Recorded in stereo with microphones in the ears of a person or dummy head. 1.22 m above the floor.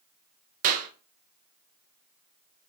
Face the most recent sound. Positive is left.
turn(degrees=-40)  # may be behind; listen again after turning